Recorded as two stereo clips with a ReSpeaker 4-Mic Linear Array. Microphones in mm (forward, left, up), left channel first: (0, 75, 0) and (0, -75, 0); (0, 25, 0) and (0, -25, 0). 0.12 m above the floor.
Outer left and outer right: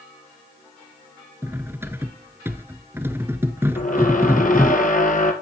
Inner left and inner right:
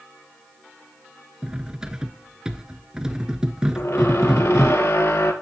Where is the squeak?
60° left (ahead or behind), 1.7 m.